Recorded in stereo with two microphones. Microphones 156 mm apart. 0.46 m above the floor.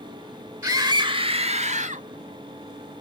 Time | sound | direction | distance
0.6 | a scream | 15° right (ahead or behind) | 0.8 m